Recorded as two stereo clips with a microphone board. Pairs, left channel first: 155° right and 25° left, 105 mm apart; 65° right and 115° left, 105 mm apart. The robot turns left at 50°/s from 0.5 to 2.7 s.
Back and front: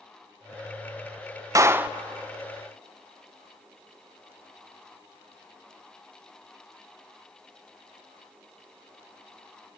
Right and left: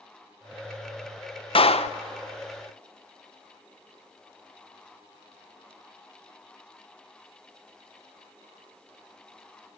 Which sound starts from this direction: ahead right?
A clap, at 1.6 s.